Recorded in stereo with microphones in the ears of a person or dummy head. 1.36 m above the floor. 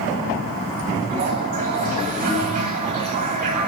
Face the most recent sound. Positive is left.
turn(degrees=-40)  # may be behind; listen again after turning